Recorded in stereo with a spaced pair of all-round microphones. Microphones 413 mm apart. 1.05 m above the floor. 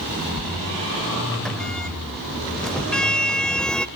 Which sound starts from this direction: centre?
A sliding door, at 0.4 s.